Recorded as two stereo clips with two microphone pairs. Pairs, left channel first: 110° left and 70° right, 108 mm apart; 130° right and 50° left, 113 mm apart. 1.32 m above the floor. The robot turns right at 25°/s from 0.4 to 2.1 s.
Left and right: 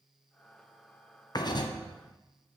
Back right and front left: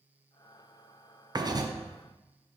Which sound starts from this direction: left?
Writing, at 1.4 s.